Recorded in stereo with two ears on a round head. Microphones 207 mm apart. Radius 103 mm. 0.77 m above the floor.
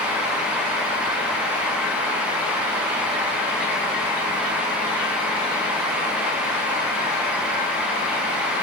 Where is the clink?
No clink in this recording.